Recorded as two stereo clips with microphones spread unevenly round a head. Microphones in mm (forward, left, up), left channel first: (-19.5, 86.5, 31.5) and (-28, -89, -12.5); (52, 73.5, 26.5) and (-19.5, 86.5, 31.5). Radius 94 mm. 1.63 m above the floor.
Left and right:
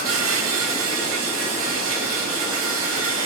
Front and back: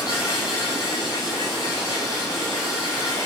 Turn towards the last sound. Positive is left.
turn(degrees=-80)